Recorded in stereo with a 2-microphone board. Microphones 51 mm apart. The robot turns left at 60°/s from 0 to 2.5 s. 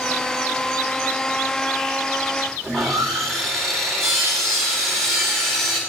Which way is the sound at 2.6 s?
10° left (ahead or behind).